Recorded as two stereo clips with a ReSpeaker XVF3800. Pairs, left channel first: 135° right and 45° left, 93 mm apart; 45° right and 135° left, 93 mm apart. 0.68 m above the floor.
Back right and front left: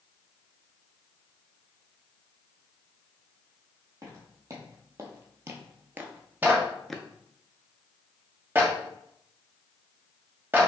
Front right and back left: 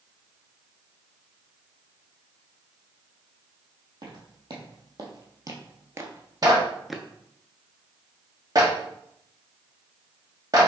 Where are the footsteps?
100° left, 1.6 m; by 7.1 s 105° right, 0.6 m.